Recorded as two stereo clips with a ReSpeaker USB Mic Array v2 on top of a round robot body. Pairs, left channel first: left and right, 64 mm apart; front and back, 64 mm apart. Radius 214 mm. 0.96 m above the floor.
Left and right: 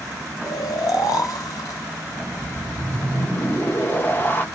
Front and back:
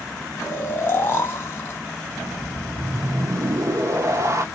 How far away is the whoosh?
About 0.9 m.